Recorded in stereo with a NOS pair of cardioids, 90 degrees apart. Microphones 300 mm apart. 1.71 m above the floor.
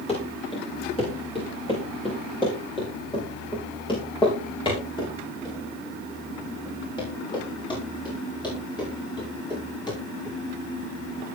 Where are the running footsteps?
20° left, 7 m; by 10.4 s 15° left, 13 m.